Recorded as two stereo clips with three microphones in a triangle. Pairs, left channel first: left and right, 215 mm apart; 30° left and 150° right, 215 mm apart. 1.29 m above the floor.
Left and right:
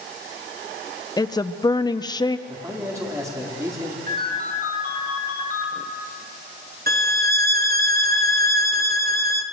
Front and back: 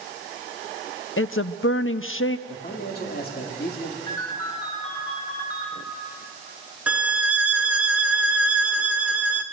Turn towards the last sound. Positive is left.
turn(degrees=-65)